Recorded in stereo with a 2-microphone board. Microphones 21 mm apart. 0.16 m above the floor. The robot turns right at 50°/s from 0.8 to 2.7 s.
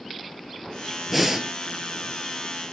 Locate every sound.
1.1 s breathing: 5° right (ahead or behind), 0.8 m; by 1.5 s 25° right (ahead or behind), 0.8 m